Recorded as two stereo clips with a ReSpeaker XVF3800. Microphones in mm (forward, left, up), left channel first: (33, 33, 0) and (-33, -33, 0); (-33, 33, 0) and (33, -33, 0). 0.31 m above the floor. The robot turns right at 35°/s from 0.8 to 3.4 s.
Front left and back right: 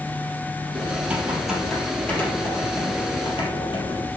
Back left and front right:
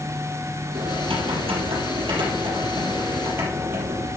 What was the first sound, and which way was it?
Typing on a keyboard, 70° right.